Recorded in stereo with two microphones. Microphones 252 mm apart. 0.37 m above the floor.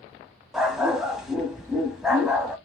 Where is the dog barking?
Centre (ahead or behind), 0.9 m.